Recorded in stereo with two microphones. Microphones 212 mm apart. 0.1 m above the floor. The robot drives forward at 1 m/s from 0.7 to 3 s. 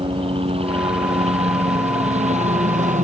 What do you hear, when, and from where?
0.0 s a helicopter: 25° right (ahead or behind); by 3.0 s 35° right (ahead or behind)